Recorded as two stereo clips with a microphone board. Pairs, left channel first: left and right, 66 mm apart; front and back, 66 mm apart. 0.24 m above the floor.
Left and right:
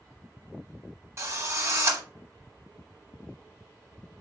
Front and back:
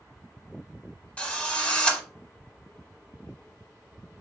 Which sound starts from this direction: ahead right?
A drill, at 1.2 s.